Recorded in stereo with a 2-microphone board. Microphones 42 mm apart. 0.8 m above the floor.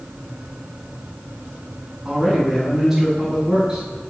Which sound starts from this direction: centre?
A man speaking, at 2.0 s.